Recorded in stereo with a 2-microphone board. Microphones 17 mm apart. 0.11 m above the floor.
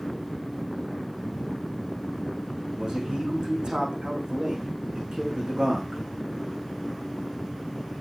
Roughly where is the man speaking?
Right.